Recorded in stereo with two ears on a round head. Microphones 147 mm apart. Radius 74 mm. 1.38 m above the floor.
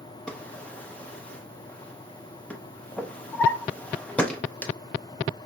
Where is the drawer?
10° left (ahead or behind), 0.5 m.